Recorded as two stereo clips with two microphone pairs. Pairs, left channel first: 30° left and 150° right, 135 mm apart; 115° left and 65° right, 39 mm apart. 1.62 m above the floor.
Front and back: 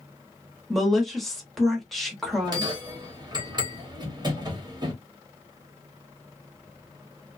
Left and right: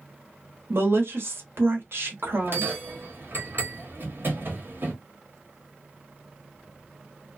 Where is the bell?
90° right, 1.2 m.